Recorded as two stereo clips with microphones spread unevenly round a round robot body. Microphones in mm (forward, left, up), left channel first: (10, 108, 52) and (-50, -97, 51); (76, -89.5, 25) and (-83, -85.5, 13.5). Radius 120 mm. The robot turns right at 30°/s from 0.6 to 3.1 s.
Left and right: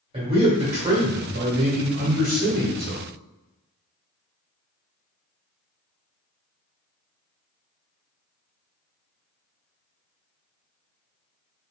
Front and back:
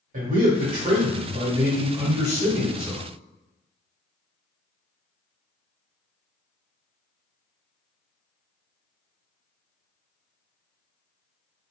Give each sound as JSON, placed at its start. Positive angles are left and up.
{"t": 0.1, "sound": "a man speaking", "azimuth_deg": -165, "distance_m": 1.8}